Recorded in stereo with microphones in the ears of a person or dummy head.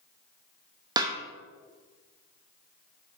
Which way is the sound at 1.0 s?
20° right (ahead or behind).